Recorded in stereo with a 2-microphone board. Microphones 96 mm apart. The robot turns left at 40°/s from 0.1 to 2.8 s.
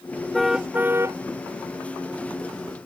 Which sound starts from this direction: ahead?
A car horn, at 0.3 s.